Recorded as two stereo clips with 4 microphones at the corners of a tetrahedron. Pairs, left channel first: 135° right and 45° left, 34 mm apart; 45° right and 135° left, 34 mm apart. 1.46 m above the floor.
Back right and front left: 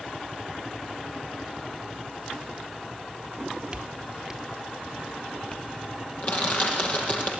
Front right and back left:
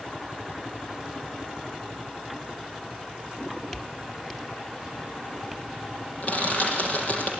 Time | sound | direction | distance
3.3 | footsteps | 15° left | 1.8 m
6.2 | crushing | 90° right | 7 m